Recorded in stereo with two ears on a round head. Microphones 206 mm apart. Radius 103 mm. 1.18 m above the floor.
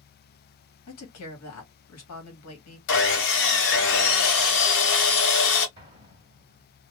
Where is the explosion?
20° right (ahead or behind), 1.3 m.